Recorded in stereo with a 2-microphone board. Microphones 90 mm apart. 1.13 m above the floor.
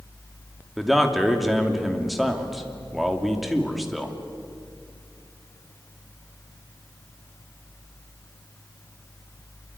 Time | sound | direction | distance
0.8 | a man speaking | centre (ahead or behind) | 2.5 m